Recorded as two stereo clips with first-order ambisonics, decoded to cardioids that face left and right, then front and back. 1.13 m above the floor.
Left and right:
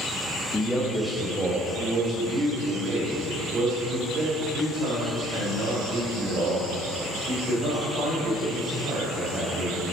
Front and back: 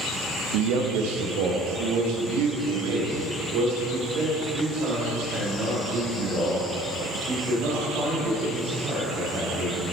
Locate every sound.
0.5 s a man speaking: 170° left, 0.9 m; by 9.8 s 140° right, 6 m